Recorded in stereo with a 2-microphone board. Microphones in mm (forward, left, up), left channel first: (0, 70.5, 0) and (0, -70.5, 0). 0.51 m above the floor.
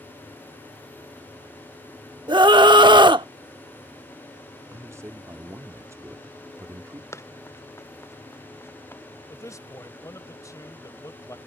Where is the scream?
35° right (ahead or behind).